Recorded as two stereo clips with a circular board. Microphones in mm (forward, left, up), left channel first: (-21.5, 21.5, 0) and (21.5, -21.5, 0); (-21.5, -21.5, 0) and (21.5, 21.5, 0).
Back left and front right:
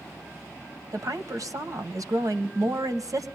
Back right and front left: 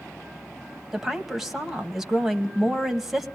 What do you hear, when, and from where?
0.9 s a woman speaking: 40° right, 2 m